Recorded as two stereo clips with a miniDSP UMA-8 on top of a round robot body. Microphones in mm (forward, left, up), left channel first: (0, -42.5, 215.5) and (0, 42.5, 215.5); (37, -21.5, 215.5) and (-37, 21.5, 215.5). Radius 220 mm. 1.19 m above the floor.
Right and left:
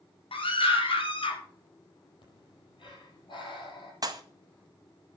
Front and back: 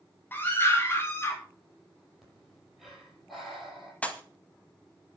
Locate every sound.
0.3 s a scream: 100° right, 5.5 m; by 1.4 s 95° right, 5 m
2.2 s breathing: 120° right, 7 m
4.0 s a pop: 45° left, 1.9 m